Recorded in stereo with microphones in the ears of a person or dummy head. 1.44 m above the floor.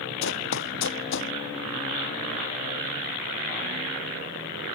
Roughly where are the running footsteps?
Left.